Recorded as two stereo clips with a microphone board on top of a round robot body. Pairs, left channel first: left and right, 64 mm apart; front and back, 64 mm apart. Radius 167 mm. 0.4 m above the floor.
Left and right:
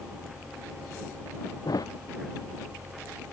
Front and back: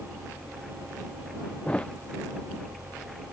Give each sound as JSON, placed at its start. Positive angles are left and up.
{"t": 1.6, "sound": "a thud", "azimuth_deg": 75}